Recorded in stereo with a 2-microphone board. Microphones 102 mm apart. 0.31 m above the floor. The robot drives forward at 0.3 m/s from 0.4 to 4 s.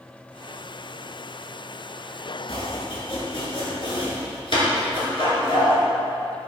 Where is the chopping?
75° left (ahead or behind), 2 m; by 5.8 s 65° left (ahead or behind), 2.5 m.